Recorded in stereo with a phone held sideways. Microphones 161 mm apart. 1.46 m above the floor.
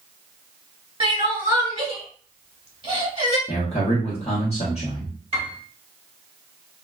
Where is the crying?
35° right (ahead or behind), 1.7 m.